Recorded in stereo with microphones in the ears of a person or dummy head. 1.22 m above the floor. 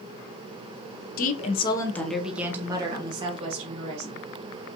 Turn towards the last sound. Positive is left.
turn(degrees=-40)  # may be behind; listen again after turning